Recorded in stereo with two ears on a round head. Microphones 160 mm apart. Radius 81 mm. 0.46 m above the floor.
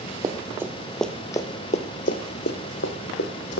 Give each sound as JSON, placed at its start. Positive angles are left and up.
{"t": 0.2, "sound": "running footsteps", "side_deg": -20, "distance_m": 1.0}